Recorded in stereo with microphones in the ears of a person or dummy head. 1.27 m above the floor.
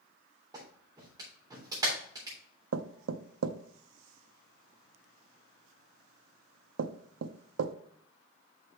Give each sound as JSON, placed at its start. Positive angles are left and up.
{"t": 0.5, "sound": "a clap", "side_deg": -15, "distance_m": 3.5}
{"t": 2.7, "sound": "knocking", "side_deg": -85, "distance_m": 0.6}